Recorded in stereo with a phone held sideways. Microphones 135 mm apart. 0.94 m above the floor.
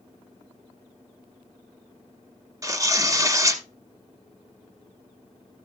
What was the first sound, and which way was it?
Tearing paper, 30° right (ahead or behind).